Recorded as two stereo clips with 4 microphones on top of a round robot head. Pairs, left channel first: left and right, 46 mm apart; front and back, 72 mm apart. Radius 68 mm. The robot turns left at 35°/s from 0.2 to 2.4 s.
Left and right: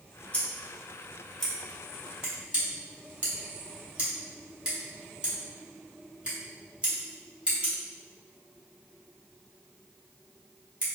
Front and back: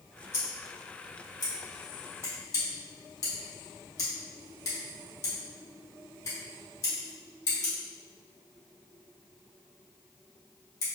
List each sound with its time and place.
0.3 s scissors: 45° left, 1.7 m; by 10.9 s 30° right, 1.7 m